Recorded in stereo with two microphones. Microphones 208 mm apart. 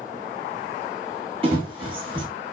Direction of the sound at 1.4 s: 25° right (ahead or behind).